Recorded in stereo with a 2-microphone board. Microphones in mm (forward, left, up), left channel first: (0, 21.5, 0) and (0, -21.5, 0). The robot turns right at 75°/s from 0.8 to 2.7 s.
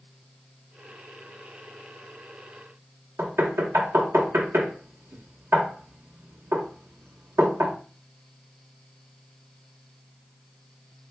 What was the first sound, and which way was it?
Knocking, 75° right (ahead or behind).